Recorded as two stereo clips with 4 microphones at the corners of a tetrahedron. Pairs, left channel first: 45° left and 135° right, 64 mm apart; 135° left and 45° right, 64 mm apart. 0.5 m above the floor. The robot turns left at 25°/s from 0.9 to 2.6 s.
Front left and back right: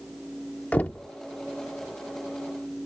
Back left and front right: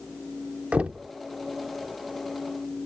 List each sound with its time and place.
0.7 s knocking: 5° left; by 1.1 s straight ahead